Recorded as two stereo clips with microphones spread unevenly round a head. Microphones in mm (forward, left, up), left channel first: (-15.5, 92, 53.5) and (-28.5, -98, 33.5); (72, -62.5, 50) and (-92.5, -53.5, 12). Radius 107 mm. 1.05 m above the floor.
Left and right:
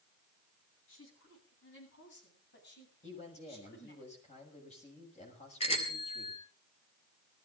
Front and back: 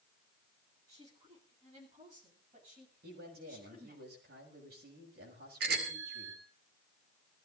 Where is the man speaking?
140° left, 7 m.